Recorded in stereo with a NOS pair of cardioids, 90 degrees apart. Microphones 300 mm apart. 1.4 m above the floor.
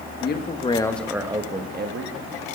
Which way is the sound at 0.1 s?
40° left.